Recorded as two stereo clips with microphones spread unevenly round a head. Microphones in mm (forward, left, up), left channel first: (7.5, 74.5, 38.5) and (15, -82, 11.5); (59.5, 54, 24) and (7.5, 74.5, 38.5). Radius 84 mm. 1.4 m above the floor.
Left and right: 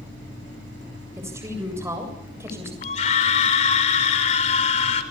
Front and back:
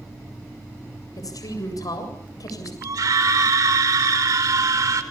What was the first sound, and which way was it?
A woman speaking, 10° right.